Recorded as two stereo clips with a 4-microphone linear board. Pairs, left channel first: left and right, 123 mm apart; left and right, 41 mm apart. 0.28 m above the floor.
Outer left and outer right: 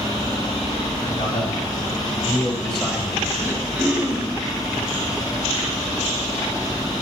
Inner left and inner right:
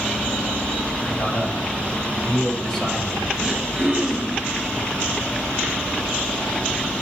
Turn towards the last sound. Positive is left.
turn(degrees=-5)  # may be behind; listen again after turning